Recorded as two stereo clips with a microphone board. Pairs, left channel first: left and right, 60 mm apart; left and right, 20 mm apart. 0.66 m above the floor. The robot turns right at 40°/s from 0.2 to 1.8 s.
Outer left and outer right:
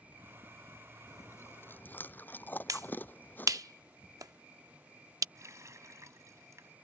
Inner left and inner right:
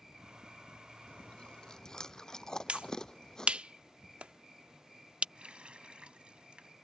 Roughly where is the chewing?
Left.